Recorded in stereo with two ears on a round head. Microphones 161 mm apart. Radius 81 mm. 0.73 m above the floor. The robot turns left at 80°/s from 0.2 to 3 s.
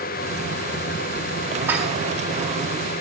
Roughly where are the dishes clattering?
Centre.